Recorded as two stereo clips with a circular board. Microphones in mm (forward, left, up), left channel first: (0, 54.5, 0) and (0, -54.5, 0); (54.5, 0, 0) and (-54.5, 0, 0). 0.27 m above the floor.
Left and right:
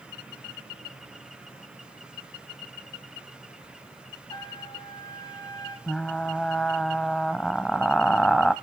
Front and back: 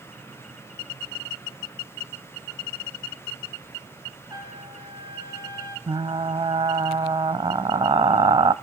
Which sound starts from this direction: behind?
Frying, at 5.9 s.